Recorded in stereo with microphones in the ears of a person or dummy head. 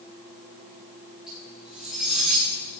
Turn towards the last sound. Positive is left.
turn(degrees=0)  # may be behind; listen again after turning